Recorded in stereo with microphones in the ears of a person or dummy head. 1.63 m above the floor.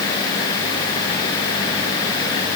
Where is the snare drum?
I don't hear a snare drum.